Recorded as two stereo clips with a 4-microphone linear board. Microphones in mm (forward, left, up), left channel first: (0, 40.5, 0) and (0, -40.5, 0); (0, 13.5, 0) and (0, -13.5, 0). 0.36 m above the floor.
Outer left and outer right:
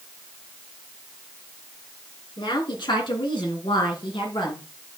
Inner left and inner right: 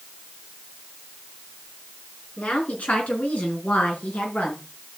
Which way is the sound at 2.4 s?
60° left (ahead or behind).